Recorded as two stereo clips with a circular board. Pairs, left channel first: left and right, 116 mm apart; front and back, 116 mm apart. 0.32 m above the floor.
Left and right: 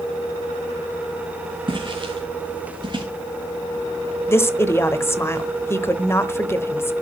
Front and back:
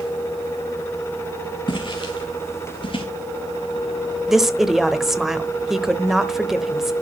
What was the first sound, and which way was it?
Footsteps, 45° right.